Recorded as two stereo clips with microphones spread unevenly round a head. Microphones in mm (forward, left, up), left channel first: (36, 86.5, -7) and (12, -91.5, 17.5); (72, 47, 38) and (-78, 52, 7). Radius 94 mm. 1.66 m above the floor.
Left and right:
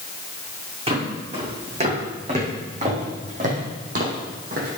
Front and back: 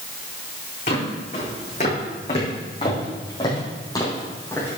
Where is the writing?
No writing in this recording.